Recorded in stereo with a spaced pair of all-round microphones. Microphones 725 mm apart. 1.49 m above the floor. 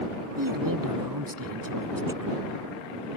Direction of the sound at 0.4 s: 25° right (ahead or behind).